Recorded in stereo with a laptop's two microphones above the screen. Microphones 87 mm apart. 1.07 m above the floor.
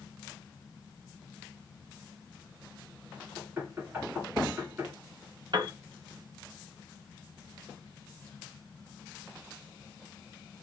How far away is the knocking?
About 1.3 m.